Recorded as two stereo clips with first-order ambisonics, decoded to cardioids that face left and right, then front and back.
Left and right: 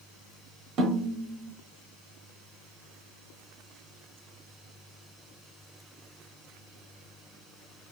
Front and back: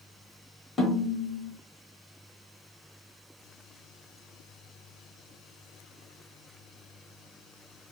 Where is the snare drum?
60° right, 0.8 m.